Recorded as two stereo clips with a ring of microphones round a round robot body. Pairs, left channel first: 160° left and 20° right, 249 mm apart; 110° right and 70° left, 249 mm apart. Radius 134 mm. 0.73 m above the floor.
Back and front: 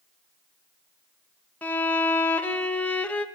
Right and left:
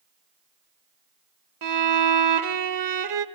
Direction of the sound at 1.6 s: 75° left.